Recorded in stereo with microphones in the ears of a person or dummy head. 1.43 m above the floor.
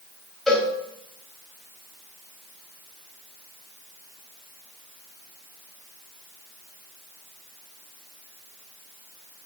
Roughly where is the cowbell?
Centre.